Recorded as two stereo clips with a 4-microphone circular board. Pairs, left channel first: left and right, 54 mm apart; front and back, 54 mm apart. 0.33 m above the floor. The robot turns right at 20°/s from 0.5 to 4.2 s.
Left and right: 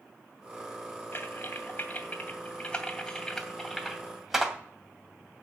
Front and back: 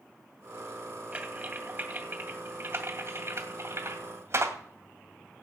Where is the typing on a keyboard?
125° left, 2 m; by 4.5 s 175° right, 2 m.